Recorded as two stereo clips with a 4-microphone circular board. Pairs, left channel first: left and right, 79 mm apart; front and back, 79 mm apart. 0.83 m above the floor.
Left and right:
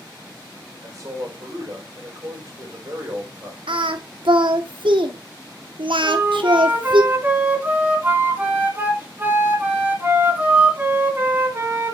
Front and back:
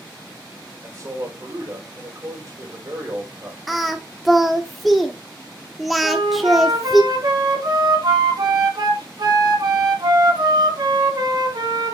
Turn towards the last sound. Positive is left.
turn(degrees=-155)